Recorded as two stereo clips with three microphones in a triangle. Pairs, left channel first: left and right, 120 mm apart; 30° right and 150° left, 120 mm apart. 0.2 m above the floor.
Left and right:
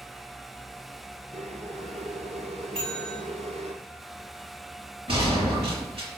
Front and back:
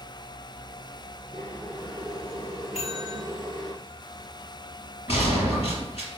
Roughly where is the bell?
Ahead right.